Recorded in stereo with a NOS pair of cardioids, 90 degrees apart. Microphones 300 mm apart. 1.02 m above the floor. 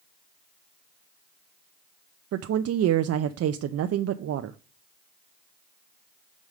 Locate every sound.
2.3 s a woman speaking: 55° right, 0.6 m